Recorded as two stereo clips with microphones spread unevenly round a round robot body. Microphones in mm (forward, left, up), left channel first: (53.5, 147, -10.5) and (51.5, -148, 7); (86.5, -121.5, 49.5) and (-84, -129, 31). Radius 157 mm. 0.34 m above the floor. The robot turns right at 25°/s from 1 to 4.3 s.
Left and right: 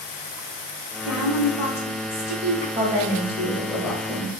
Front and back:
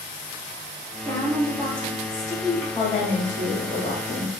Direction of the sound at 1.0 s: 70° left.